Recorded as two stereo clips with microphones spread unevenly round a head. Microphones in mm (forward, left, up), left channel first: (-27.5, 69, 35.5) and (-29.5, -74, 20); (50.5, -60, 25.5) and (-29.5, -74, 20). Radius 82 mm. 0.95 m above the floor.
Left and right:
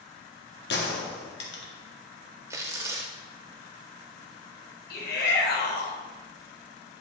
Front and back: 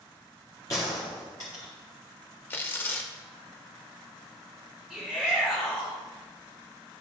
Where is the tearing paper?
20° right, 0.7 m.